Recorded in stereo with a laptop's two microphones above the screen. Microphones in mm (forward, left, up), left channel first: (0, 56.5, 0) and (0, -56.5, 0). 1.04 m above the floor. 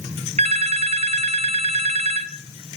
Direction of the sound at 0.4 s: 65° right (ahead or behind).